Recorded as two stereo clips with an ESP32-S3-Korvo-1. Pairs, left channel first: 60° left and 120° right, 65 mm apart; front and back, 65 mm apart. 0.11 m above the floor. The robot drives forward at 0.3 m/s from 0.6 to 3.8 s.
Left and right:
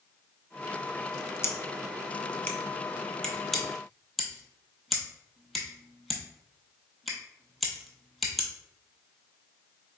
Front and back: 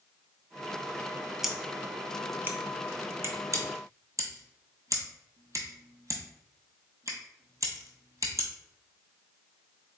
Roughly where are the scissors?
Left.